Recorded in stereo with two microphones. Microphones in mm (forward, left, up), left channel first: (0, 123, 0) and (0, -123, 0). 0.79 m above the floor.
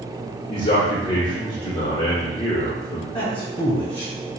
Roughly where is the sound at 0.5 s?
Left.